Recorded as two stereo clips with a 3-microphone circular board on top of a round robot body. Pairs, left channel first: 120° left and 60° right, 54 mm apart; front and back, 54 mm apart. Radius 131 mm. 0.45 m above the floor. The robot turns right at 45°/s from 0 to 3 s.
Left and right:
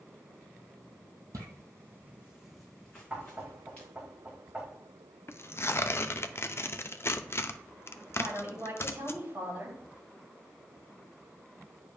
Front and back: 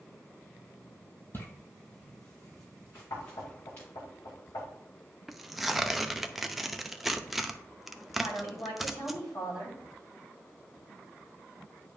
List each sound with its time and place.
1.3 s footsteps: 50° right, 1.0 m; by 3.9 s 55° left, 3.5 m
3.1 s knocking: 5° left, 2.5 m
5.3 s tearing paper: 95° left, 0.6 m
8.2 s a woman speaking: 10° right, 3.5 m